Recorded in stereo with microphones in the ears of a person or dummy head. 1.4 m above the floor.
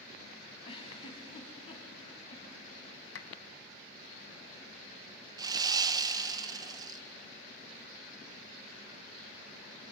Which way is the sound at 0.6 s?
35° left (ahead or behind).